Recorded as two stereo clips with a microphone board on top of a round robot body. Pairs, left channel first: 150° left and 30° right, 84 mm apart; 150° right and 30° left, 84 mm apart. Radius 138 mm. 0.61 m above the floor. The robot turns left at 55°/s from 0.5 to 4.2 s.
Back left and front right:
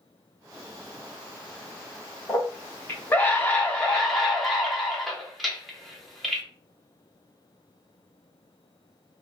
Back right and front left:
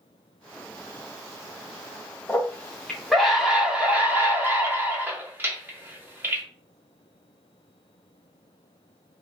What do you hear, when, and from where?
2.3 s a scream: 165° left, 1.2 m; by 6.4 s 60° left, 1.2 m